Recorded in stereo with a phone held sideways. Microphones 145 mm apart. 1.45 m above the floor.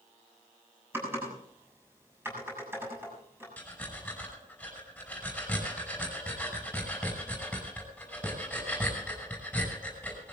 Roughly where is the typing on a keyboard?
Centre.